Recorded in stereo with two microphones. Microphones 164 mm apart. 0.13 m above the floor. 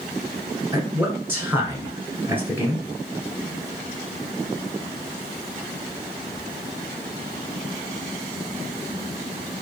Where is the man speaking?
15° right (ahead or behind), 1.3 m.